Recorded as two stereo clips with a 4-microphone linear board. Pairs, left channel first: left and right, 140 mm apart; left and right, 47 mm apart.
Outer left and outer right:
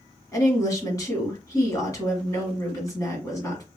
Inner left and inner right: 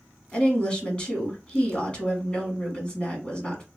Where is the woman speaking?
25° left (ahead or behind), 1.4 m.